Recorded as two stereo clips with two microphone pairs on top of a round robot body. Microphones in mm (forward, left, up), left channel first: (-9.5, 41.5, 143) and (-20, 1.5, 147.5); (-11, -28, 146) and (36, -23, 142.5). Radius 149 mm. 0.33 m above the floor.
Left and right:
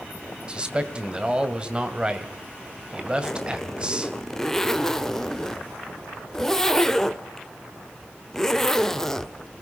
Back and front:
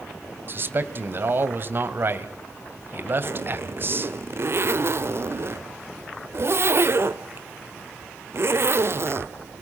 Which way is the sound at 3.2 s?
5° left.